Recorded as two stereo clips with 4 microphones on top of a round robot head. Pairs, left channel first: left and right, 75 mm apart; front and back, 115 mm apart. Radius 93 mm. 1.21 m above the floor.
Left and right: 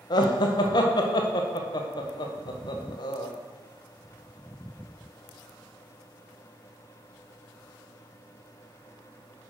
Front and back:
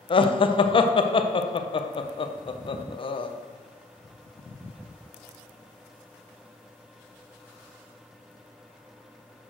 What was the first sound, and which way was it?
Laughter, 45° left.